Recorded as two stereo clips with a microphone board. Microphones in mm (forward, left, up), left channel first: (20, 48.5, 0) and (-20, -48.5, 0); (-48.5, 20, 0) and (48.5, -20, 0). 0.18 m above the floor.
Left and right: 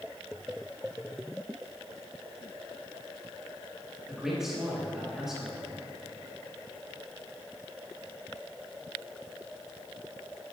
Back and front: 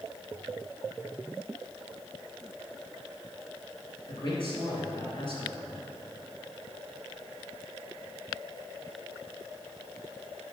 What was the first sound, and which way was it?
A man speaking, 165° left.